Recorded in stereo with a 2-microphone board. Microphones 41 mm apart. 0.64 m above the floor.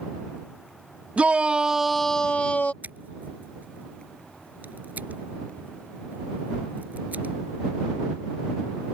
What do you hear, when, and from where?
1.2 s a shout: 30° right (ahead or behind); by 2.7 s 45° left (ahead or behind)
2.8 s scissors: 45° right (ahead or behind)